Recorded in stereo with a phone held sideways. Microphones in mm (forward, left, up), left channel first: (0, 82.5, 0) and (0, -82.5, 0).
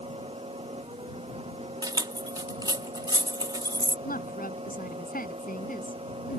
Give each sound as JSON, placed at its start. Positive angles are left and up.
{"t": 0.0, "sound": "a fan", "side_deg": -35}
{"t": 1.8, "sound": "keys jangling", "side_deg": -25}
{"t": 4.0, "sound": "a woman speaking", "side_deg": 60}